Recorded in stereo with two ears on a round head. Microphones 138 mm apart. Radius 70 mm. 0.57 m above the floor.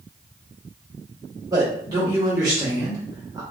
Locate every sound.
1.5 s a man speaking: 25° right (ahead or behind), 1.6 m